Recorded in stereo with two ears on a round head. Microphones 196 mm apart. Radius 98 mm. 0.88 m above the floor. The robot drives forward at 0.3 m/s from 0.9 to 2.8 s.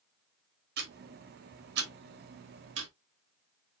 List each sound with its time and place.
0.8 s ticking: 45° right (ahead or behind), 2.0 m; by 2.9 s 60° right (ahead or behind), 1.7 m